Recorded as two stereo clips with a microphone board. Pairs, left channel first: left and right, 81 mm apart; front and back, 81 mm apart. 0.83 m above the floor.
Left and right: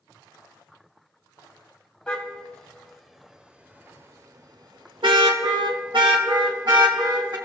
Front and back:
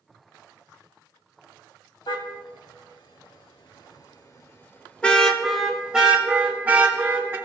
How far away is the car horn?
About 2.5 m.